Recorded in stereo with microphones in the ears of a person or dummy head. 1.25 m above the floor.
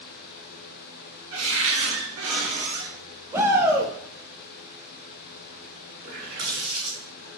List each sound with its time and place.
1.3 s a cupboard door: 70° right (ahead or behind), 1.6 m
3.3 s a shout: 15° right (ahead or behind), 1.1 m
6.0 s a running tap: 55° right (ahead or behind), 2.5 m